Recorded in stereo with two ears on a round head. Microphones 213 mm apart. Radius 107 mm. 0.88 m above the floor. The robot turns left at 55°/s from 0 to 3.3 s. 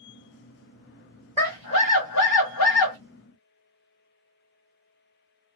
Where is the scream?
160° left, 1.4 m; by 3.0 s 75° left, 1.4 m.